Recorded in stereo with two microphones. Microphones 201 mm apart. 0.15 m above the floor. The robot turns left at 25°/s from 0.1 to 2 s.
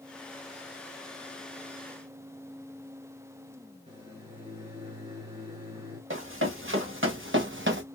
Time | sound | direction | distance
3.9 | a microwave | 25° right (ahead or behind) | 2 m
6.1 | running footsteps | 80° right | 2.5 m